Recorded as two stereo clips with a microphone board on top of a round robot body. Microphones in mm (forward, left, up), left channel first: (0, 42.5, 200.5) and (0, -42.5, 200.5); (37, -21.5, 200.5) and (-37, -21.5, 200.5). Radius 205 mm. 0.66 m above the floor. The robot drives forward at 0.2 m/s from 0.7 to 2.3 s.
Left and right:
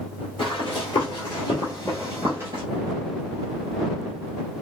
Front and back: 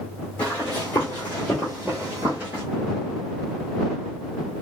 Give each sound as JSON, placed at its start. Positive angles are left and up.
{"t": 0.4, "sound": "running footsteps", "azimuth_deg": 70, "distance_m": 1.1}